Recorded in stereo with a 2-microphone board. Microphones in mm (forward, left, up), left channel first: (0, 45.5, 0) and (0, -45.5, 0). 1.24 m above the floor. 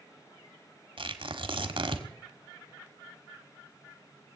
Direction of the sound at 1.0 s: 70° right (ahead or behind).